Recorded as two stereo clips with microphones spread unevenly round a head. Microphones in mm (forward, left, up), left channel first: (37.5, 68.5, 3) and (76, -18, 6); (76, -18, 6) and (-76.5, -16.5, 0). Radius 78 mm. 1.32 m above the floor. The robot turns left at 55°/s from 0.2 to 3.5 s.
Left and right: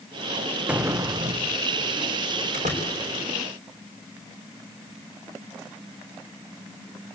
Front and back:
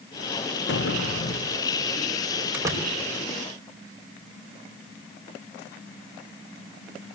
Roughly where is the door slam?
Right.